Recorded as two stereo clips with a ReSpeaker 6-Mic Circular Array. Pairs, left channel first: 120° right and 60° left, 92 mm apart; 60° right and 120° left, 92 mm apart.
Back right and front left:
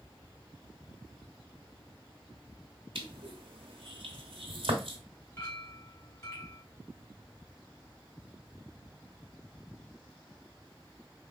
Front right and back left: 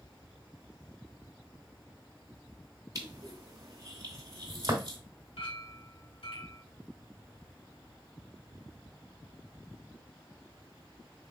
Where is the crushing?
70° left, 2.0 m.